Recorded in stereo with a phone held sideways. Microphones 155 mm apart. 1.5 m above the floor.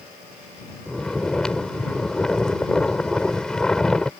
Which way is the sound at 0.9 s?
5° left (ahead or behind).